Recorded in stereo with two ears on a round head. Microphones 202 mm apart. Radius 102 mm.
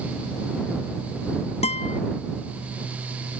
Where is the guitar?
30° left (ahead or behind).